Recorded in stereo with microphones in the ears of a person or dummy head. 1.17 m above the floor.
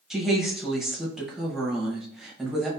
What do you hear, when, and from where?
0.1 s a woman speaking: 10° right (ahead or behind), 0.7 m